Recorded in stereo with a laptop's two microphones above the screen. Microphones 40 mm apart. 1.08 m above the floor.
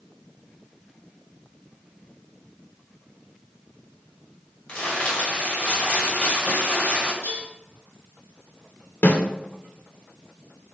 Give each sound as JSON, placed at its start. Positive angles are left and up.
{"t": 4.7, "sound": "crumpling", "side_deg": 35, "distance_m": 2.0}
{"t": 7.2, "sound": "dishes clattering", "side_deg": 50, "distance_m": 3.0}
{"t": 9.0, "sound": "a snare drum", "side_deg": 55, "distance_m": 1.3}